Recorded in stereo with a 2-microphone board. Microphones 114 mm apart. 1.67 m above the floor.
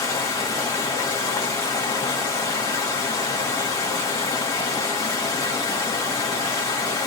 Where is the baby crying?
No baby crying in this recording.